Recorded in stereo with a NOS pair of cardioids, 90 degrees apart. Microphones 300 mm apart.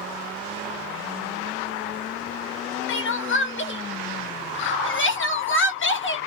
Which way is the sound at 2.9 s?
40° left.